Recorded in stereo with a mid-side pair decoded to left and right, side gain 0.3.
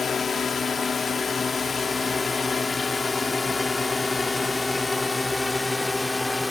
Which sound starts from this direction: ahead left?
A drone, at 0.0 s.